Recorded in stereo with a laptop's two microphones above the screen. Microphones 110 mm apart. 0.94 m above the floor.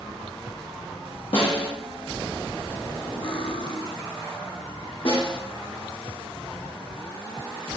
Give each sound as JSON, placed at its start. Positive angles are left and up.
{"t": 1.3, "sound": "a snare drum", "side_deg": 60, "distance_m": 1.3}
{"t": 3.2, "sound": "cutlery clinking", "side_deg": 55, "distance_m": 0.6}
{"t": 5.0, "sound": "a snare drum", "side_deg": 65, "distance_m": 2.0}